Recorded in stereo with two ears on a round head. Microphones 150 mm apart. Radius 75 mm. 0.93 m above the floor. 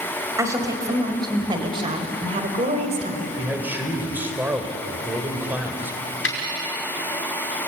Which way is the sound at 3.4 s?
10° right (ahead or behind).